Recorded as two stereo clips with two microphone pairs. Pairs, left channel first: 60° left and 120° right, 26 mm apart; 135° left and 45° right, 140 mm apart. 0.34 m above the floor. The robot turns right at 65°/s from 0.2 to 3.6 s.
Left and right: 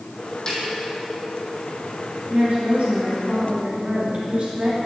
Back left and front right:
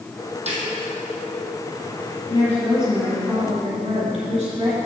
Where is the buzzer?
No buzzer in this recording.